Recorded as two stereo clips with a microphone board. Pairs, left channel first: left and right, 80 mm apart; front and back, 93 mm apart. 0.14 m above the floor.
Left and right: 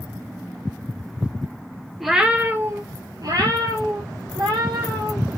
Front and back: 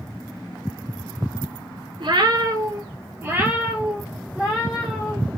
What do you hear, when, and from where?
2.0 s a cat meowing: straight behind, 0.5 m; by 5.2 s 95° right, 1.8 m